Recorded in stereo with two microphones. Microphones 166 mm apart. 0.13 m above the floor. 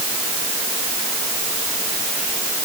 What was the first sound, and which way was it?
Only background noise.